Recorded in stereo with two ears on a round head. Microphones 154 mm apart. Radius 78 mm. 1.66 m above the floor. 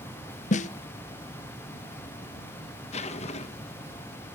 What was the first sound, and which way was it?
A snare drum, 40° left (ahead or behind).